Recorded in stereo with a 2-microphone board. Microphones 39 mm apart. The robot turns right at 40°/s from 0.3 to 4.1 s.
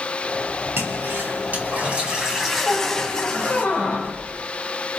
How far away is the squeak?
About 7.5 m.